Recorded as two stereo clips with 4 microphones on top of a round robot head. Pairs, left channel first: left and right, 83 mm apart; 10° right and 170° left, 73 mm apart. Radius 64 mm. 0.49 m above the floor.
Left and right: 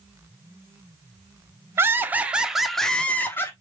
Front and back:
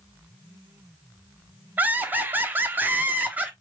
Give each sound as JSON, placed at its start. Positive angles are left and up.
{"t": 1.8, "sound": "laughter", "azimuth_deg": -135, "distance_m": 1.2}